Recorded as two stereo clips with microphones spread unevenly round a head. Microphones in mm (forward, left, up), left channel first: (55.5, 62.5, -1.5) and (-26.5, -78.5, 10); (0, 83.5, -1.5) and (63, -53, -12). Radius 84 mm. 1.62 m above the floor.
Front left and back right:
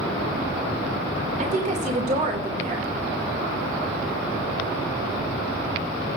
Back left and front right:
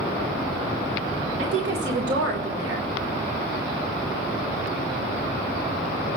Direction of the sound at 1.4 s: 75° right.